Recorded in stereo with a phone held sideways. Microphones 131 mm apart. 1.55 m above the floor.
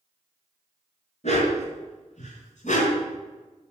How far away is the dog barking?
About 6 m.